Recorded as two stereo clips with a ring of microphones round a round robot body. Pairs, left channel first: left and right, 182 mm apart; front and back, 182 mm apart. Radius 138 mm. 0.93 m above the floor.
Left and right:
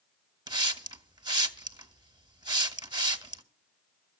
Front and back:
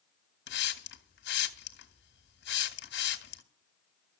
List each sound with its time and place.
0.5 s a hiss: 25° right, 1.7 m